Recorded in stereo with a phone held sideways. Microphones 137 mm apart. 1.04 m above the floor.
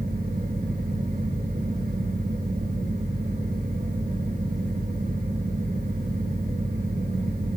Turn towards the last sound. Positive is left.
turn(degrees=-75)  # may be behind; listen again after turning